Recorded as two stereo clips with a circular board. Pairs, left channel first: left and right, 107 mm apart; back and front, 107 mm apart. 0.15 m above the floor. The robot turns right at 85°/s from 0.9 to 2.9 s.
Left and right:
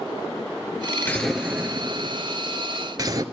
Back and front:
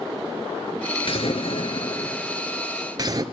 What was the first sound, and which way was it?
An explosion, 160° left.